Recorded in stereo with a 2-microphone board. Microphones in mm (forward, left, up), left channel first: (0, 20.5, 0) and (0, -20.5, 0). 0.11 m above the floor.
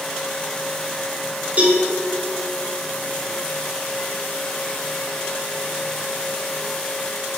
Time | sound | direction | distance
1.6 | a cowbell | 40° right (ahead or behind) | 3 m